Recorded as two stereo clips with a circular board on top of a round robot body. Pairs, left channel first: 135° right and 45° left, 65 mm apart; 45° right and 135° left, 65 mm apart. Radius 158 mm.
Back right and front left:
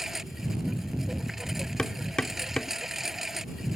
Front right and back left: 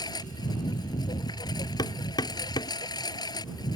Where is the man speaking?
I don't hear a man speaking.